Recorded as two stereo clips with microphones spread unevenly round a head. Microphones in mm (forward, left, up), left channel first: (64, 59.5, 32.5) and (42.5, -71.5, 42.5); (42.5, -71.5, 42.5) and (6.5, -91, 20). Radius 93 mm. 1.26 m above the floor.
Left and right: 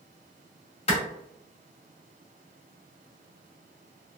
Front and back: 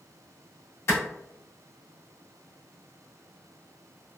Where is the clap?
35° left, 1.5 m.